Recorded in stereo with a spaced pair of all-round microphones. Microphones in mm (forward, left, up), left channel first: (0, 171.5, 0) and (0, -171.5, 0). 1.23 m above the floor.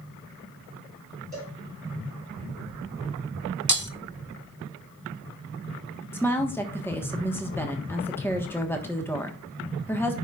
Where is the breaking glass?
60° right (ahead or behind), 0.7 m.